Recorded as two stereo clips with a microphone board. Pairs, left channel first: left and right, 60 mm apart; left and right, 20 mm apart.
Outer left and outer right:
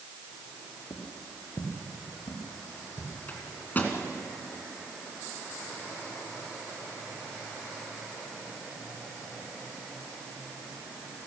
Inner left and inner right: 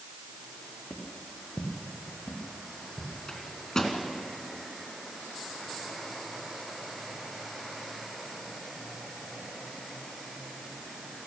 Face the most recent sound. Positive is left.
turn(degrees=30)  # may be behind; listen again after turning